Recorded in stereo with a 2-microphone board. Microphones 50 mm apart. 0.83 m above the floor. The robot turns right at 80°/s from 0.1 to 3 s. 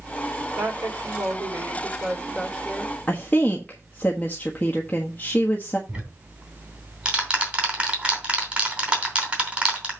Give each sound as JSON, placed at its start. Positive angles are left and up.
{"t": 0.6, "sound": "a woman speaking", "azimuth_deg": -150, "distance_m": 3.0}
{"t": 3.1, "sound": "a woman speaking", "side_deg": 35, "distance_m": 1.3}
{"t": 5.9, "sound": "ticking", "side_deg": -20, "distance_m": 3.0}